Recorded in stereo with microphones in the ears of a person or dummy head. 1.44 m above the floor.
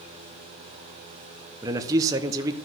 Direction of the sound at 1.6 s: 15° right (ahead or behind).